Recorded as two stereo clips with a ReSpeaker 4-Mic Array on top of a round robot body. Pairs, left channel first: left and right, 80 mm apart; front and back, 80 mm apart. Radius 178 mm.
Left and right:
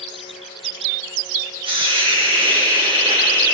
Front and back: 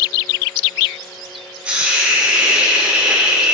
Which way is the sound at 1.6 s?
105° right.